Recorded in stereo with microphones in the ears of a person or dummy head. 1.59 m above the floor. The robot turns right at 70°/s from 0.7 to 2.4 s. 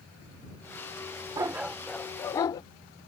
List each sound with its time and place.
1.4 s a dog barking: 25° right; by 2.6 s 45° left